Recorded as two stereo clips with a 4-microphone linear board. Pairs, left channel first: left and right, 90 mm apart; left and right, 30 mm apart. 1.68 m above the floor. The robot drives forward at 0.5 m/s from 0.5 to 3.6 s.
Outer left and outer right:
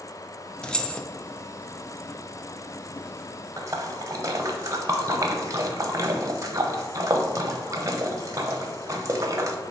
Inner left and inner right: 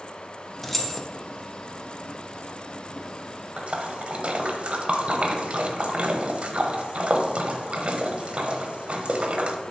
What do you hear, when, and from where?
0.6 s keys jangling: 10° left (ahead or behind), 0.6 m
3.6 s a splash: 35° right (ahead or behind), 0.8 m